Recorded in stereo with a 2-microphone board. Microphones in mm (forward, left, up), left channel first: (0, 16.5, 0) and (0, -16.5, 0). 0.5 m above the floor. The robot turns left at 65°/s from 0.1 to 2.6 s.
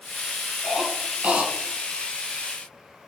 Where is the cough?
10° right (ahead or behind), 4.5 m; by 1.5 s 65° right (ahead or behind), 4.5 m.